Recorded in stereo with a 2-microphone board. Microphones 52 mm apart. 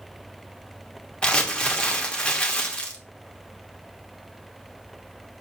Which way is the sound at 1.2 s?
20° left (ahead or behind).